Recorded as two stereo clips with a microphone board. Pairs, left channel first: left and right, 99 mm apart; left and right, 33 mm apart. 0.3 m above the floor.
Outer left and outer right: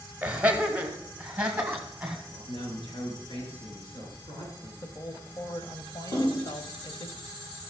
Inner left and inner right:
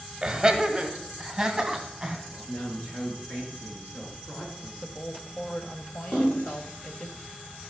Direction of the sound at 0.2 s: 15° right (ahead or behind).